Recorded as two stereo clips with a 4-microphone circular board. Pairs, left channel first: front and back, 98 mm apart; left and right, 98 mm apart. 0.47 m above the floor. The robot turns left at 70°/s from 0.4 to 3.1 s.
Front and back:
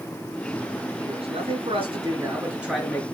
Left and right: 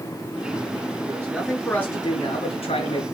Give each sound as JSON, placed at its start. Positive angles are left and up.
{"t": 1.1, "sound": "a man speaking", "azimuth_deg": -150, "distance_m": 5.5}